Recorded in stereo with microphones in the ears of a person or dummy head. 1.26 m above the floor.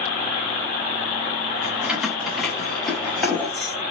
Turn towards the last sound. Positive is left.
turn(degrees=10)  # may be behind; listen again after turning